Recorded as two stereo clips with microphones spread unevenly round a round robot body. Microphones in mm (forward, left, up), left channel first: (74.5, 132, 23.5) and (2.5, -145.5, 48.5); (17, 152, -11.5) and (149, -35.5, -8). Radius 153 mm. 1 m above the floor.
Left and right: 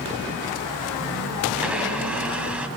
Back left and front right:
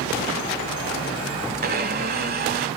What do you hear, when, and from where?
1.6 s a blender: 25° right, 1.2 m